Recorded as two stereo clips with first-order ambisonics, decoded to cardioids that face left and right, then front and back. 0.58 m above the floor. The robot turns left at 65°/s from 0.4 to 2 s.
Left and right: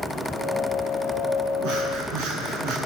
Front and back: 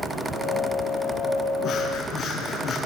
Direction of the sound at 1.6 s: 50° right.